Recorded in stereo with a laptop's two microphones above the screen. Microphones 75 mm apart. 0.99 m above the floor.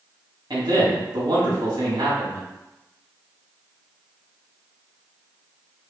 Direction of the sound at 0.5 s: 65° right (ahead or behind).